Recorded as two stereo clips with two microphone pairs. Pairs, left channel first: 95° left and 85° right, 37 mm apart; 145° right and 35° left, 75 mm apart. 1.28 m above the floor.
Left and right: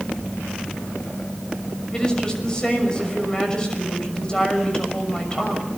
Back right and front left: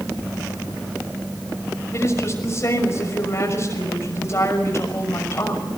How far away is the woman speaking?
About 6 m.